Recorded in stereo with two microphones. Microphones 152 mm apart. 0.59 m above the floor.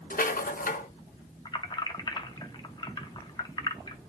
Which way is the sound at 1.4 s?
30° left (ahead or behind).